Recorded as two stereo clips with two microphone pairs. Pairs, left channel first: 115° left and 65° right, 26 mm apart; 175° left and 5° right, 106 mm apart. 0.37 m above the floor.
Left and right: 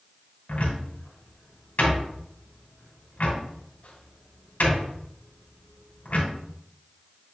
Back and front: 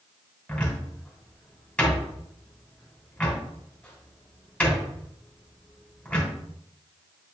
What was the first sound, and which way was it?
A cupboard door, 100° left.